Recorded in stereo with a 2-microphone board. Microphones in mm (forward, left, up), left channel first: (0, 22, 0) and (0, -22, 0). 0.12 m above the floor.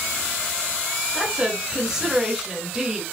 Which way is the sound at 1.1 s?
15° right (ahead or behind).